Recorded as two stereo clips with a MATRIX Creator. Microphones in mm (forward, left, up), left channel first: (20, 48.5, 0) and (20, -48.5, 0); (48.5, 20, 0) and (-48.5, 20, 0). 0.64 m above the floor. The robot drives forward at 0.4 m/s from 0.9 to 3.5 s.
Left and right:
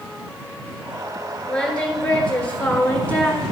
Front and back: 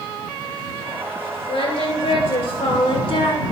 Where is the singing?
10° left, 1.9 m; by 3.4 s 20° left, 1.2 m.